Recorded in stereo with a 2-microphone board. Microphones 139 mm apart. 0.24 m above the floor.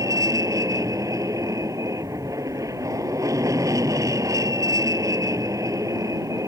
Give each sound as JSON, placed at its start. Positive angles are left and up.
{"t": 0.0, "sound": "an aircraft", "side_deg": -25}